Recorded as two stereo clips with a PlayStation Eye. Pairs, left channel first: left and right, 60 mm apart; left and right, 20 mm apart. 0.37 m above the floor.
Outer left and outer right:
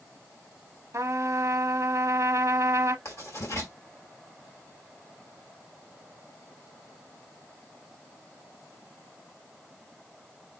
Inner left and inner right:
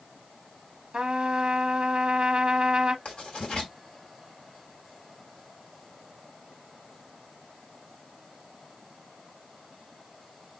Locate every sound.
0.9 s a trumpet: 55° right (ahead or behind), 0.6 m
3.0 s writing: 55° left (ahead or behind), 2.5 m